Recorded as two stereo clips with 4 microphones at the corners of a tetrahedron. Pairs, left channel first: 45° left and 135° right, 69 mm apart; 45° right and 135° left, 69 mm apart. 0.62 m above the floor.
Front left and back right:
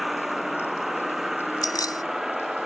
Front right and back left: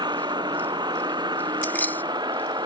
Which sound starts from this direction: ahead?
Keys jangling, at 1.6 s.